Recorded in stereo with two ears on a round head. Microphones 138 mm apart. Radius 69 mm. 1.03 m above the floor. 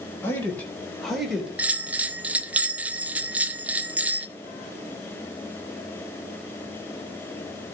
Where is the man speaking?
15° left (ahead or behind), 4 m; by 1.5 s 5° right (ahead or behind), 3 m.